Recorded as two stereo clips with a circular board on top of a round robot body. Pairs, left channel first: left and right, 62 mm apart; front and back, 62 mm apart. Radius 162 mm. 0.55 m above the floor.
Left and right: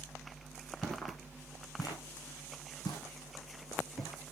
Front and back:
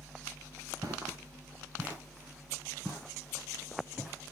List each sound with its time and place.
0.8 s footsteps: straight behind, 0.6 m; by 4.3 s 100° left, 3.5 m